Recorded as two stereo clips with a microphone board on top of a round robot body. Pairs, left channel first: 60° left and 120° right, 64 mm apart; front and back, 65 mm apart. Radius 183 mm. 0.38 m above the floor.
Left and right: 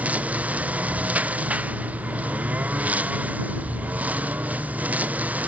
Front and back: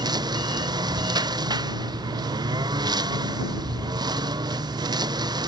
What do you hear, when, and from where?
0.0 s a lawn mower: 170° left; by 5.5 s 175° left